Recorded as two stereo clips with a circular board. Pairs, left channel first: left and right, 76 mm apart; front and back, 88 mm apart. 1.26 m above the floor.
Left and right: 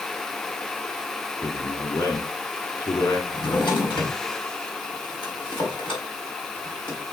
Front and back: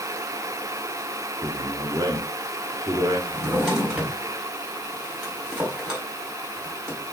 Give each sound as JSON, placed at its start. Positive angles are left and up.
{"t": 1.4, "sound": "a man speaking", "azimuth_deg": 125, "distance_m": 2.5}
{"t": 3.3, "sound": "a drawer", "azimuth_deg": 95, "distance_m": 4.0}